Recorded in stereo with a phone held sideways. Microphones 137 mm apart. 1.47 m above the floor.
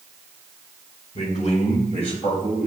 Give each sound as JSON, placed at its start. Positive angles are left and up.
{"t": 1.1, "sound": "a man speaking", "side_deg": 55, "distance_m": 1.1}